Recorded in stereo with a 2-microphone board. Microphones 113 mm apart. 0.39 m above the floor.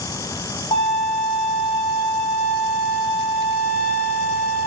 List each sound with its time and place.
0.7 s a violin: 55° left (ahead or behind), 2.5 m